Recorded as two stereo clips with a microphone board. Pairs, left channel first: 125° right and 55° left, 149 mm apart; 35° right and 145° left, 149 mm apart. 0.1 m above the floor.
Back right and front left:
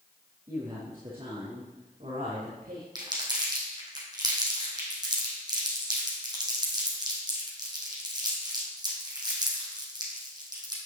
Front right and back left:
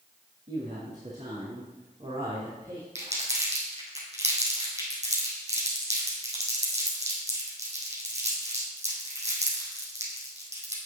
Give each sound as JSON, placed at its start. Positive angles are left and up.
{"t": 0.5, "sound": "a woman speaking", "azimuth_deg": 115, "distance_m": 4.0}
{"t": 3.0, "sound": "crumpling", "azimuth_deg": 115, "distance_m": 3.0}